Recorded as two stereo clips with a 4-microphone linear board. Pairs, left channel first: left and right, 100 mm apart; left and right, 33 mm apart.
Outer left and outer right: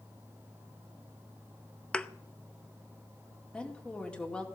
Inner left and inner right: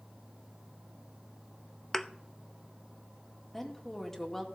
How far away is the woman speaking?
About 2.5 m.